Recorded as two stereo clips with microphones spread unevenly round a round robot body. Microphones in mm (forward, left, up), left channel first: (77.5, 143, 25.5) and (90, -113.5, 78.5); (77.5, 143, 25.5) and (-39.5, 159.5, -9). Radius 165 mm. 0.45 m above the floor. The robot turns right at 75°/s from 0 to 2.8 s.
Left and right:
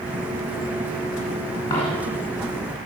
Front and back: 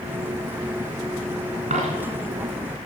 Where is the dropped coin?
170° left, 2.5 m; by 2.1 s 155° right, 2.5 m.